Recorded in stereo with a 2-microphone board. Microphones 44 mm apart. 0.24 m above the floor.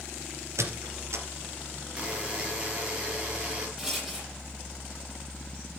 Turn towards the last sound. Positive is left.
turn(degrees=-10)  # may be behind; listen again after turning